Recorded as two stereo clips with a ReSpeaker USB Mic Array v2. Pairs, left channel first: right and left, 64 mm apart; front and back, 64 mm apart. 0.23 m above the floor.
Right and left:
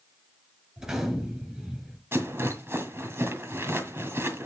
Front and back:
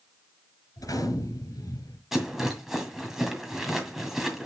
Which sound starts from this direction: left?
A rattle, at 2.1 s.